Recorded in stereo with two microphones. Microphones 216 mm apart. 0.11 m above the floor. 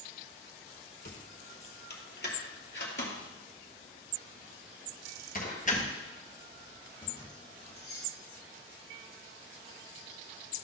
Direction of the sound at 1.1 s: 45° left (ahead or behind).